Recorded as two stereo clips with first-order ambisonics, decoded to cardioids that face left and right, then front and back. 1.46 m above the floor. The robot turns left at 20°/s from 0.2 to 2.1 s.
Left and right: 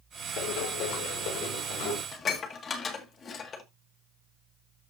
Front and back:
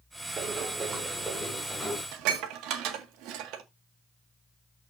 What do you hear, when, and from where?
0.4 s running footsteps: 120° left, 6.5 m; by 2.0 s 80° left, 6.5 m
2.1 s dishes clattering: 155° left, 1.7 m